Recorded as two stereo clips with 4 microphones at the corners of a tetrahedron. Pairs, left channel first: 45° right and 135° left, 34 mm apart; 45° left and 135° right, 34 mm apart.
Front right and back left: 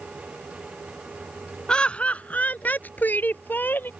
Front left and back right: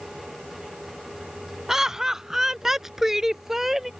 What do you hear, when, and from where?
1.7 s laughter: 75° right; by 3.9 s 60° right